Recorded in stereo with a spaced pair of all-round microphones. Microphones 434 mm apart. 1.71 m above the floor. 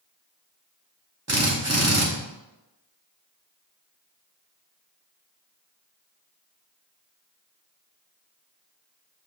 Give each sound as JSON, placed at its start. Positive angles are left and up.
{"t": 1.3, "sound": "a drill", "side_deg": -35, "distance_m": 1.4}